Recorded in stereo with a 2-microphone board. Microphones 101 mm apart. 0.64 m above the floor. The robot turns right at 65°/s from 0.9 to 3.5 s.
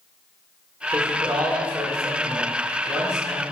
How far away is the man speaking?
About 1.8 m.